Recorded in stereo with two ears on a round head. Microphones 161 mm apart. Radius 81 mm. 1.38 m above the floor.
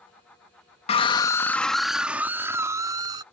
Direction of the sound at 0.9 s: 35° left (ahead or behind).